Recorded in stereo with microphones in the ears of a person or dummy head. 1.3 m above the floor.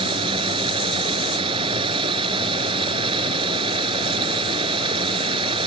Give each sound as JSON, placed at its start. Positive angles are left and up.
{"t": 0.0, "sound": "running water", "side_deg": -35}